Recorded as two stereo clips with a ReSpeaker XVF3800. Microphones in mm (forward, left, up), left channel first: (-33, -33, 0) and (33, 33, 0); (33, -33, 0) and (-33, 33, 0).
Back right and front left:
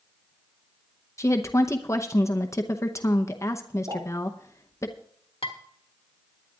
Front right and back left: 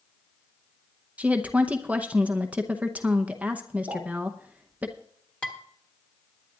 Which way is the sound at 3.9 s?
75° left.